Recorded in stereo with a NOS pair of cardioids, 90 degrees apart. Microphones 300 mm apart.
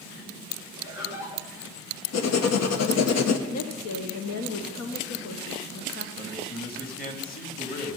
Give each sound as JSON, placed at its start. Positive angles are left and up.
{"t": 0.8, "sound": "laughter", "azimuth_deg": 65, "distance_m": 7.5}
{"t": 2.1, "sound": "writing", "azimuth_deg": 60, "distance_m": 1.3}
{"t": 3.5, "sound": "a woman speaking", "azimuth_deg": 60, "distance_m": 1.4}
{"t": 6.2, "sound": "a man speaking", "azimuth_deg": 30, "distance_m": 3.5}